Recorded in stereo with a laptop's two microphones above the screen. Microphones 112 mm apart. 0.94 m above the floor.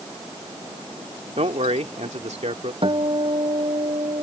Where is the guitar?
50° right (ahead or behind).